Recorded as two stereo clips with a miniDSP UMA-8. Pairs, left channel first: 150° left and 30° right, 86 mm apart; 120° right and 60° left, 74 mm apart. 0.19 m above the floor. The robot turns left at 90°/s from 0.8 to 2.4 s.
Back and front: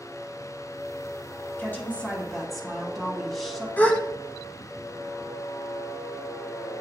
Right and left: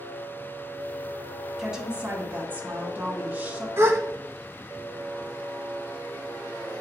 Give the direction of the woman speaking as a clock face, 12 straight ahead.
7 o'clock.